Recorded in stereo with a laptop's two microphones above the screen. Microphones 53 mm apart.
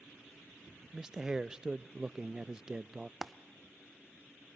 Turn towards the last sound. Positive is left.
turn(degrees=0)  # may be behind; listen again after turning